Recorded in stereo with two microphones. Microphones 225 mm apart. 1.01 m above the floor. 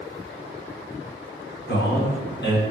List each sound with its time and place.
1.7 s a man speaking: 50° left (ahead or behind), 0.8 m